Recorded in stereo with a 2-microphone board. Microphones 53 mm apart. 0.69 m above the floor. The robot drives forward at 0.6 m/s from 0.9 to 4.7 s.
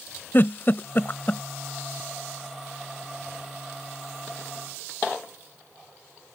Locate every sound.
0.3 s a giggle: 45° left (ahead or behind); by 1.4 s 35° left (ahead or behind)